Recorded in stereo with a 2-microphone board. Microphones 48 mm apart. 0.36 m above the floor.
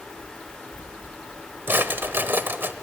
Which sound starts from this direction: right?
A drawer, at 1.7 s.